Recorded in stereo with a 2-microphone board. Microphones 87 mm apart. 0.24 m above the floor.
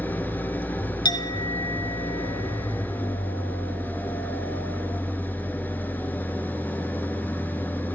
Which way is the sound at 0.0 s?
20° left (ahead or behind).